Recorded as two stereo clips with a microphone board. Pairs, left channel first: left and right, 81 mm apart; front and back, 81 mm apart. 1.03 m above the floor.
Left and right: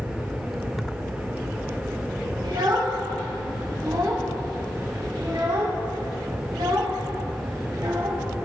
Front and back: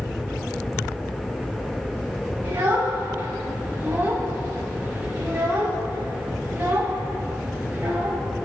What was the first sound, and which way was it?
A child speaking, 120° right.